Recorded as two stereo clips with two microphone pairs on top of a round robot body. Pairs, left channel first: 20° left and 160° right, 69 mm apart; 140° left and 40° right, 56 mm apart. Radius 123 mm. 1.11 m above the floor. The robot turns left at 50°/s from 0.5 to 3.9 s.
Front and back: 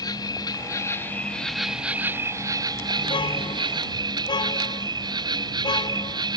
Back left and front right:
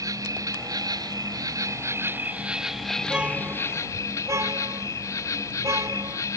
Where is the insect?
15° right; by 6.4 s 175° left.